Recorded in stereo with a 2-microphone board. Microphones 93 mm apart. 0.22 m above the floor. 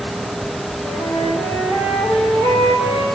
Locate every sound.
0.8 s a flute: 45° left (ahead or behind), 3.5 m